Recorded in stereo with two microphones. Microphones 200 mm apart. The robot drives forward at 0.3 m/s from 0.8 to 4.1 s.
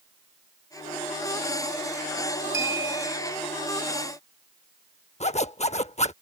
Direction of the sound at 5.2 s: 35° left (ahead or behind).